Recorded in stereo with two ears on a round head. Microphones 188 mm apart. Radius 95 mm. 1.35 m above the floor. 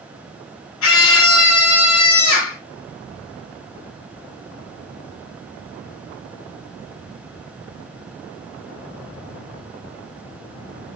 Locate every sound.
0.8 s a scream: 70° left (ahead or behind), 2.5 m